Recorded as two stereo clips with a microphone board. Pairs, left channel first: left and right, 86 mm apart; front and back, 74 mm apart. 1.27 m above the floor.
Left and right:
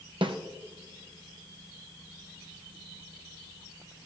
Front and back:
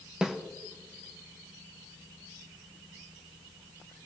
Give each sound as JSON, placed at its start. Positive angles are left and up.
{"t": 0.2, "sound": "a snare drum", "azimuth_deg": -100, "distance_m": 0.9}